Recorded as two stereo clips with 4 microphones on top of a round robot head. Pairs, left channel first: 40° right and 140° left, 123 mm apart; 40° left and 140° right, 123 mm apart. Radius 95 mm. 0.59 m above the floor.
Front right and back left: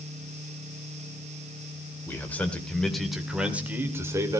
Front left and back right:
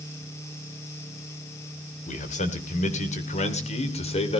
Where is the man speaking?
30° left, 3 m; by 4.4 s 75° left, 2.5 m.